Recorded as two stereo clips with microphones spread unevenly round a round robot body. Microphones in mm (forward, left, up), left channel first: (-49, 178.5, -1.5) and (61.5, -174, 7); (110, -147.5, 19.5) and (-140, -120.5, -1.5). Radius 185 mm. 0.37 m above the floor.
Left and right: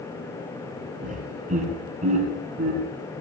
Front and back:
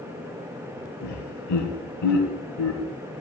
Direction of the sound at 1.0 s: 5° right.